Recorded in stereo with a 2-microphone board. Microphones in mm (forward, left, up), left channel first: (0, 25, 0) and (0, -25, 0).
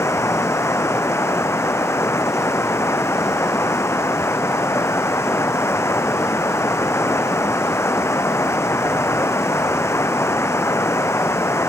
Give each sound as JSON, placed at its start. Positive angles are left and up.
{"t": 0.0, "sound": "running water", "side_deg": 60}